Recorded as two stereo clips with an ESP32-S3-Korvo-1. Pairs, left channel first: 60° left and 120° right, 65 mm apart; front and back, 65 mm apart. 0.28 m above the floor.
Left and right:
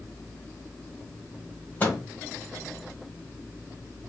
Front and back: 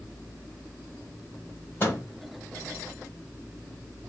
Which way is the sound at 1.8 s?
30° left.